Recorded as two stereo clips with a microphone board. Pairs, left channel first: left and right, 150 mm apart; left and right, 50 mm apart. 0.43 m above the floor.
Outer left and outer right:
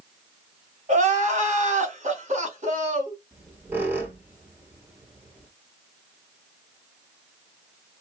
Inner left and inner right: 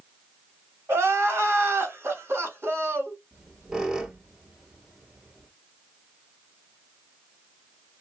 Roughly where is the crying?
Right.